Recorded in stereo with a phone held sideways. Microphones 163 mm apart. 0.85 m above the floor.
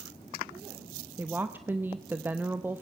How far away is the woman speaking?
About 0.6 m.